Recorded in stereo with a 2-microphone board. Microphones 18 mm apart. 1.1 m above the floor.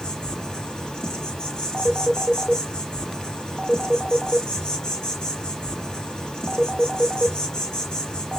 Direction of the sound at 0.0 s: 55° left (ahead or behind).